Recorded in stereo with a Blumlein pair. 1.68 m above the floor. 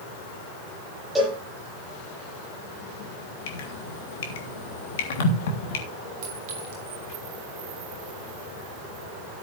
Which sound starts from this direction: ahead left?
Dripping, at 3.5 s.